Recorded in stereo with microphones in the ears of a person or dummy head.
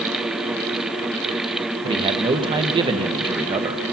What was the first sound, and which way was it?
A man speaking, 25° right (ahead or behind).